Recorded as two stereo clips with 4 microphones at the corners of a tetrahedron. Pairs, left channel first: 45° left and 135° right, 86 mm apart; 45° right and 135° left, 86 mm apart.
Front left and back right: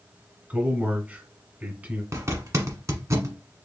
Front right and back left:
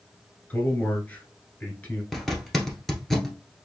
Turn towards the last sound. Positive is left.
turn(degrees=-130)